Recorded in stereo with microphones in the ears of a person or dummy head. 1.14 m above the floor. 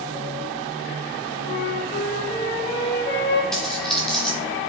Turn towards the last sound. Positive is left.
turn(degrees=0)  # may be behind; listen again after turning